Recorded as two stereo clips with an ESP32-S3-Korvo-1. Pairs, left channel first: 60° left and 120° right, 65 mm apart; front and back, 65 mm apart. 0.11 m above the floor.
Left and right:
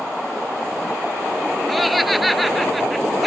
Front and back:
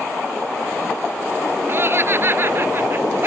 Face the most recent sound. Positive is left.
turn(degrees=150)